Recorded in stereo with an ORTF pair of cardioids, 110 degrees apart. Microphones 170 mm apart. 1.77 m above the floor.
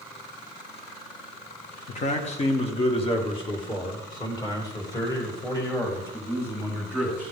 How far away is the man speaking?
About 2.0 m.